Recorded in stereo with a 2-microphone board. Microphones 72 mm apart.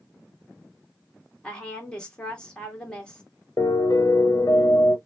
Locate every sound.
1.4 s a woman speaking: 10° left (ahead or behind), 1.6 m
3.6 s a piano: 55° left (ahead or behind), 0.5 m